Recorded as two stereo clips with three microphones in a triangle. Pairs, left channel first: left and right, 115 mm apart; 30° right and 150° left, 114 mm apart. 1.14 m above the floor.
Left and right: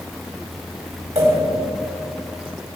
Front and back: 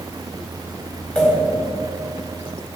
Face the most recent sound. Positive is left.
turn(degrees=-110)